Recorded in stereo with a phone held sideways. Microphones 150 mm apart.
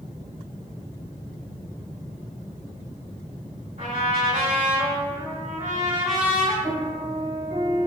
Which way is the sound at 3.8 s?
55° right (ahead or behind).